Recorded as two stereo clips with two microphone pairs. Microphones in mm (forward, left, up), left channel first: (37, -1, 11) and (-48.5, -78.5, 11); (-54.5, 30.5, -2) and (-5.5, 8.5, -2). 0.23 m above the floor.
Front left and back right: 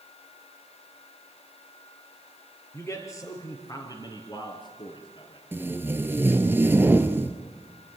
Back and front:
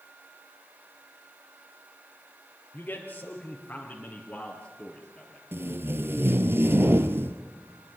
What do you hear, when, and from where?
2.7 s a man speaking: 110° left, 3 m; by 5.4 s 75° left, 3 m
5.5 s tape being pulled: 70° right, 1.2 m